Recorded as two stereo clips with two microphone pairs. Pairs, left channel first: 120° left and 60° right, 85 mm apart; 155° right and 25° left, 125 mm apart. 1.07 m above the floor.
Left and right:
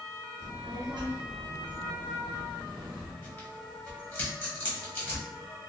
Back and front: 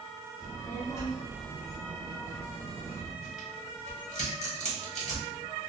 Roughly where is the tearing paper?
Behind.